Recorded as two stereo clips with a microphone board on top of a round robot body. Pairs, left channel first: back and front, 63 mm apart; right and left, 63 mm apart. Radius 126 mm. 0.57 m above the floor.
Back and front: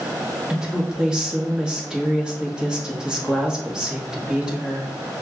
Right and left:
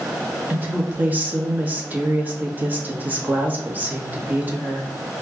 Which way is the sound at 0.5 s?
65° left.